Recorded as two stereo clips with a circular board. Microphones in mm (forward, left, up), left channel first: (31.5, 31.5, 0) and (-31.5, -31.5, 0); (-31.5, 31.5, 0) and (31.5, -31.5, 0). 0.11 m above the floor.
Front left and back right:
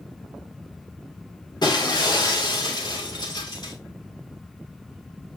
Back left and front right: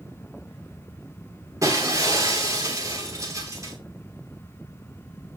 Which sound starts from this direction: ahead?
Breaking glass, at 1.6 s.